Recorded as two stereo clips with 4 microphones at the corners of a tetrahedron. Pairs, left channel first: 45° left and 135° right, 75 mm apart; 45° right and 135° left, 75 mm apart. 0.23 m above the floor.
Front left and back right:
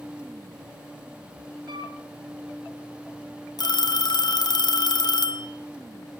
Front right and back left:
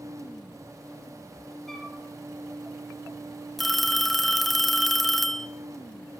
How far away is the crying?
No crying in this recording.